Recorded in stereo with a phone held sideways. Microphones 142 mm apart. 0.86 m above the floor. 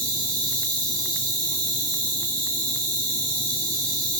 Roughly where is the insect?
Centre.